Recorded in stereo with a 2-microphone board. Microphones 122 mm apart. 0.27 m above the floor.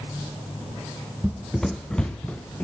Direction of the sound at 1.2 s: 10° right (ahead or behind).